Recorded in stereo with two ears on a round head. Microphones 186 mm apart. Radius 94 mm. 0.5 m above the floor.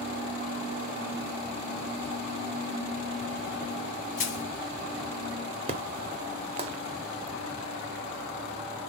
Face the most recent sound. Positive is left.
turn(degrees=-30)  # may be behind; listen again after turning